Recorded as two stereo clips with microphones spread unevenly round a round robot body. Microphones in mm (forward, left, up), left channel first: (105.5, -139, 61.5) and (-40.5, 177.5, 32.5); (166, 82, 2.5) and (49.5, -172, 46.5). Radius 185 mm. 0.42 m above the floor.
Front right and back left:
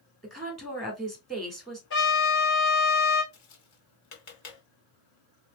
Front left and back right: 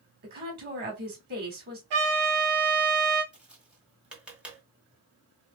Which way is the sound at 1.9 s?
125° right.